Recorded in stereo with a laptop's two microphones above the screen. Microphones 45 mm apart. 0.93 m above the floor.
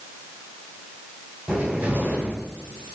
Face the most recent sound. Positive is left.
turn(degrees=-40)  # may be behind; listen again after turning